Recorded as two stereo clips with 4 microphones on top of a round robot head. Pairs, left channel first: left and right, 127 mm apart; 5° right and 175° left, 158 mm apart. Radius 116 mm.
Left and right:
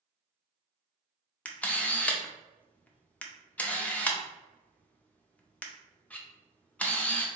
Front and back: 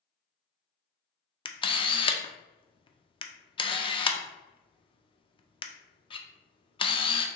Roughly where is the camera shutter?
Ahead.